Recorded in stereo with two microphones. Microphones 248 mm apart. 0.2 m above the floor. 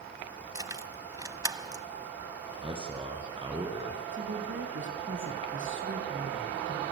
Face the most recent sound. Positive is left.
turn(degrees=-55)  # may be behind; listen again after turning